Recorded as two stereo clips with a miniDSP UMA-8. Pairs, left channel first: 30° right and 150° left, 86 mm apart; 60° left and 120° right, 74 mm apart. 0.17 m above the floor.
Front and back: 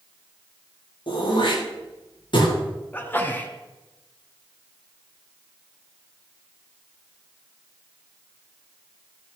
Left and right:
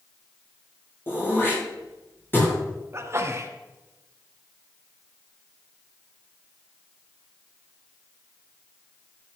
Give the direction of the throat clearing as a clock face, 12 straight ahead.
12 o'clock.